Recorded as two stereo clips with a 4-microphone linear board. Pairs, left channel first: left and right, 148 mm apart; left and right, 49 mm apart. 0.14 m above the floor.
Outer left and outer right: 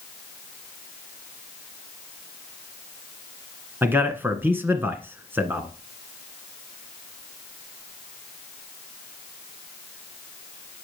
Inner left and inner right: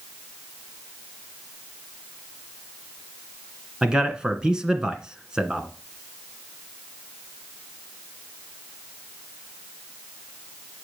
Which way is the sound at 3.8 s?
15° right (ahead or behind).